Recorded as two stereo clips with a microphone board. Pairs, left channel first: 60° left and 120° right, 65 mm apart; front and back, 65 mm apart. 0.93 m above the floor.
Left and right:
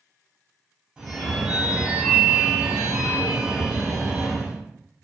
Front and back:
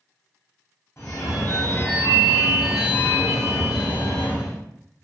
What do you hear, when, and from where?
1.0 s a phone ringing: 45° right, 0.7 m